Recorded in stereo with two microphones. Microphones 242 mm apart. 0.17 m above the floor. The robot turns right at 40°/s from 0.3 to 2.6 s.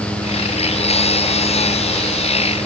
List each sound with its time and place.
Only background noise.